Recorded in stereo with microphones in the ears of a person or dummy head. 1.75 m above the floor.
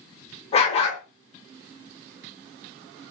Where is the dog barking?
35° left (ahead or behind), 3 m.